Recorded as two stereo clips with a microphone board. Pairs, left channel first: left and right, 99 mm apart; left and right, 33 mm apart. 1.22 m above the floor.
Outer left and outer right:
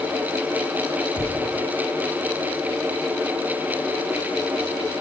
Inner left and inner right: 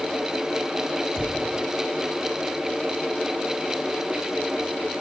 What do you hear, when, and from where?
1.1 s a thud: 20° left (ahead or behind), 4 m